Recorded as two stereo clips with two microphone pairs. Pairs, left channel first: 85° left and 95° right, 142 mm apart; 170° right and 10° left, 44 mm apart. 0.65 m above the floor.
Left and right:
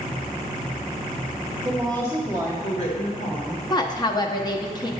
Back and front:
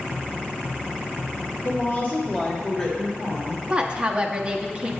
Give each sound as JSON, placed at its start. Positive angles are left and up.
{"t": 1.6, "sound": "a woman speaking", "azimuth_deg": 175, "distance_m": 1.0}
{"t": 3.7, "sound": "a woman speaking", "azimuth_deg": 60, "distance_m": 0.6}